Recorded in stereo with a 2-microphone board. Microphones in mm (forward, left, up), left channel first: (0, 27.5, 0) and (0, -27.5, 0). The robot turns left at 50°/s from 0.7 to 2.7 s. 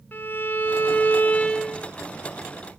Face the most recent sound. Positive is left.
turn(degrees=-20)